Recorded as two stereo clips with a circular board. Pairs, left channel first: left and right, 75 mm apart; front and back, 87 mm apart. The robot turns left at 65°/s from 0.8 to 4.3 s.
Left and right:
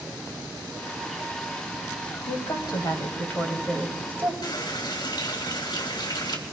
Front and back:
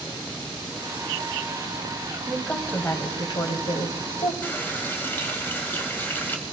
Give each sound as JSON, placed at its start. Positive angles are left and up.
{"t": 2.3, "sound": "a woman speaking", "azimuth_deg": 95, "distance_m": 2.5}
{"t": 4.4, "sound": "a running tap", "azimuth_deg": 70, "distance_m": 2.0}